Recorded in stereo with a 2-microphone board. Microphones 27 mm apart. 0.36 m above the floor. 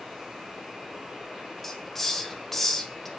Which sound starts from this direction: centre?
A hiss, at 1.6 s.